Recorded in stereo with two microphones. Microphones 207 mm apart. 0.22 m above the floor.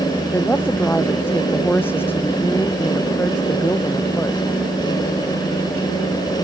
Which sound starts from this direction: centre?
A woman speaking, at 0.3 s.